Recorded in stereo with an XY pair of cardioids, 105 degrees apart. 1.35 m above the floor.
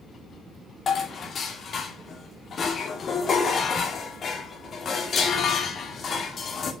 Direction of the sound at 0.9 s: 50° left.